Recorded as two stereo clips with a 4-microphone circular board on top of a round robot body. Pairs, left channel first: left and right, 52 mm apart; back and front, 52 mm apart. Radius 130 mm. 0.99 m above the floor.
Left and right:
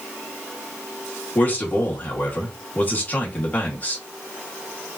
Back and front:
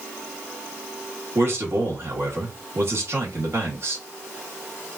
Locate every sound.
1.4 s a man speaking: 35° left, 1.9 m